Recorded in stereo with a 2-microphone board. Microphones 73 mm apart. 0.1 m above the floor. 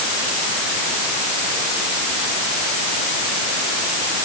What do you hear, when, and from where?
Only background noise.